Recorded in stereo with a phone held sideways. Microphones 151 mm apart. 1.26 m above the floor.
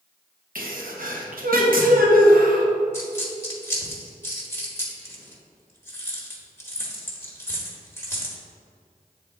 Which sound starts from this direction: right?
A sneeze, at 0.6 s.